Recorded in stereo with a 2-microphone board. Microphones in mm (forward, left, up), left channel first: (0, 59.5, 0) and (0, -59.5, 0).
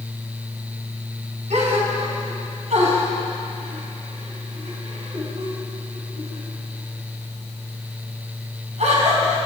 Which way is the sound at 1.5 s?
70° right (ahead or behind).